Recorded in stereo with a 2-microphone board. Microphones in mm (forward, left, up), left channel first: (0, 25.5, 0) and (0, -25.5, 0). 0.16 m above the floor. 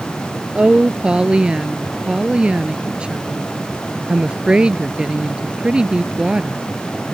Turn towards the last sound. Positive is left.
turn(degrees=-20)  # may be behind; listen again after turning